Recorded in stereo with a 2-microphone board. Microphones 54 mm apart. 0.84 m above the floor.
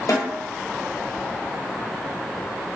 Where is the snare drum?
75° left (ahead or behind), 3 m.